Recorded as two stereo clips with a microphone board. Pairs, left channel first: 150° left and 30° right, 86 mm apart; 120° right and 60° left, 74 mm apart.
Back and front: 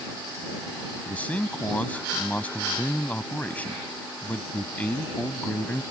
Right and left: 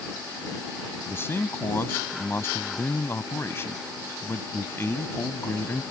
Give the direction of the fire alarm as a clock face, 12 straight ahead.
No fire alarm in this recording.